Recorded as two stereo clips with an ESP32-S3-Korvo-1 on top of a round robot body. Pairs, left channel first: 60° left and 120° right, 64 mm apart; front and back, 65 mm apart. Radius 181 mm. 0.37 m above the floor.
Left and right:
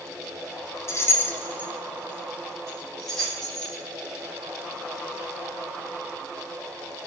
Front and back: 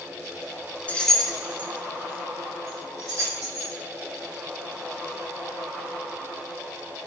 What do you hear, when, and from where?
0.9 s keys jangling: 55° left, 0.5 m; by 3.7 s 145° left, 1.6 m